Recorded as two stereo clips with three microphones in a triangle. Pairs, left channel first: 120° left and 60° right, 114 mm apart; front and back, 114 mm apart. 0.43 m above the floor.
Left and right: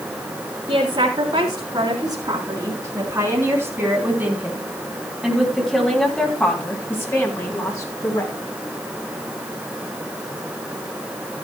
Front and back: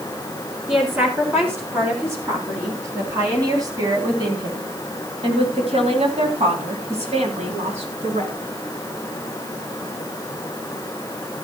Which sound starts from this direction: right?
A woman speaking, at 0.7 s.